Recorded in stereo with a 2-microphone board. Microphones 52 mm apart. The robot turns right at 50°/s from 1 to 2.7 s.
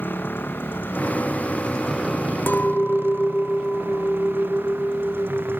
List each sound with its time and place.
0.0 s a motorcycle: 140° left; by 5.6 s 135° right
2.5 s a clink: 45° left (ahead or behind); by 5.6 s 35° left (ahead or behind)